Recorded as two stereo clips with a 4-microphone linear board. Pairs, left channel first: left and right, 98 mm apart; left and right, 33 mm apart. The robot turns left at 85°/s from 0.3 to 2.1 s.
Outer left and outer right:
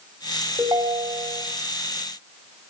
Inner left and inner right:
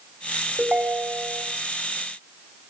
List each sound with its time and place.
0.6 s a ringtone: 25° right, 4 m; by 1.4 s 95° right, 4 m